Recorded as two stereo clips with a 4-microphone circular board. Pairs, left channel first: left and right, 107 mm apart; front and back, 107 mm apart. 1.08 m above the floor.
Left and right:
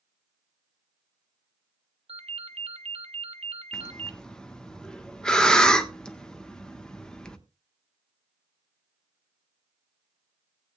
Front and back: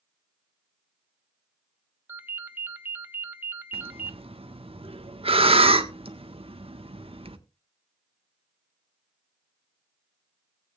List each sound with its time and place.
2.1 s a ringtone: 110° right, 0.9 m
3.7 s breathing: 170° left, 1.2 m